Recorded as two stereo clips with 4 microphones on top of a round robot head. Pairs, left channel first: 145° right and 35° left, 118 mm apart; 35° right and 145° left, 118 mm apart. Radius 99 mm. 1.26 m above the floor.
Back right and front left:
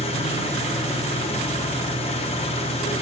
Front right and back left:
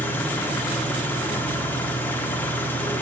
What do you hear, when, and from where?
0.0 s an engine running: 110° right, 1.1 m